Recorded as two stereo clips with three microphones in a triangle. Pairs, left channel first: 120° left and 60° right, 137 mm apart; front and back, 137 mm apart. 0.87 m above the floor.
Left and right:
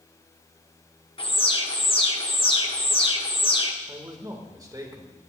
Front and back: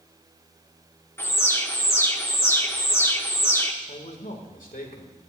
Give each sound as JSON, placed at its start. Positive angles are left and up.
{"t": 1.2, "sound": "an alarm", "azimuth_deg": 75, "distance_m": 1.3}
{"t": 3.9, "sound": "a man speaking", "azimuth_deg": 5, "distance_m": 2.5}